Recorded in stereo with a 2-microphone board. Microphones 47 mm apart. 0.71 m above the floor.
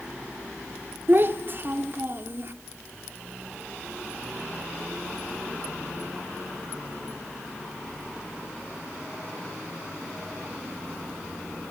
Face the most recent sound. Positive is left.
turn(degrees=-45)  # may be behind; listen again after turning